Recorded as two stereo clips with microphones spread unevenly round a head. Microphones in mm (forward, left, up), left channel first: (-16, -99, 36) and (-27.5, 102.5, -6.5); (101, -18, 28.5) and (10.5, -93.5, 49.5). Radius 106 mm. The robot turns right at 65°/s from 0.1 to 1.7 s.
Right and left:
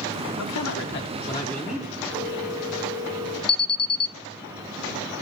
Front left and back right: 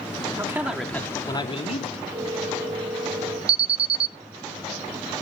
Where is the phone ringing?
125° left, 5.5 m.